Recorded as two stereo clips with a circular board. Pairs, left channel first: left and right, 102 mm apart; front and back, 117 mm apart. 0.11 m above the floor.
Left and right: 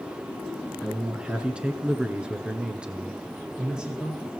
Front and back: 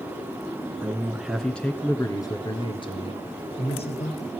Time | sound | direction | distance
0.8 | a man speaking | 160° right | 1.1 m